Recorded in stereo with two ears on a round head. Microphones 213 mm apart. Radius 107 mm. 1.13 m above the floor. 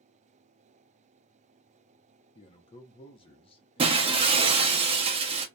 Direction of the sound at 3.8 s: 25° right (ahead or behind).